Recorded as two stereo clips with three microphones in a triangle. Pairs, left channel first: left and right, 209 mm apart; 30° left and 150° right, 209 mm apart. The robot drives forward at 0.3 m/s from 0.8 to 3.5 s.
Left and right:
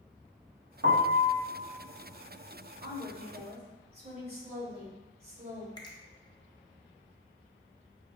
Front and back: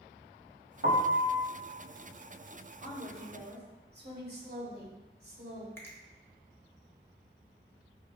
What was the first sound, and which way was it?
A piano, 110° right.